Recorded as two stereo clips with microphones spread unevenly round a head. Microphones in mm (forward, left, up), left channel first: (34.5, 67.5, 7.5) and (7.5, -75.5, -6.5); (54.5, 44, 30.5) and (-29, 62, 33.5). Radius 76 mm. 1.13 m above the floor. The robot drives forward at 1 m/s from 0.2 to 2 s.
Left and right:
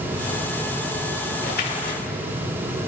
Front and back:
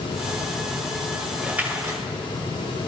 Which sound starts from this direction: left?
A splash, at 1.4 s.